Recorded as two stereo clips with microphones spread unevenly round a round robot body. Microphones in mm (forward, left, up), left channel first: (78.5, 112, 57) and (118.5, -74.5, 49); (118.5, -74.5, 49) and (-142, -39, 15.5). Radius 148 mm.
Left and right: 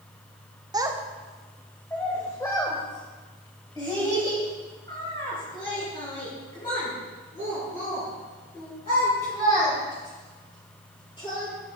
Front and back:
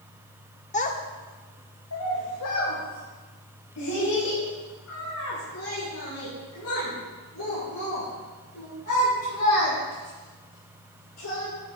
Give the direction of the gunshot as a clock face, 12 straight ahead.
No gunshot in this recording.